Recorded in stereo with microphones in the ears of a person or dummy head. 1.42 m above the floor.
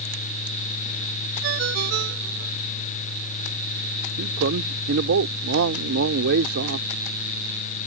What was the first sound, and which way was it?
A ringtone, 55° right (ahead or behind).